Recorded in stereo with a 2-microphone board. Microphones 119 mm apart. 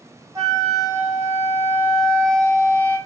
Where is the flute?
25° right (ahead or behind), 1.0 m.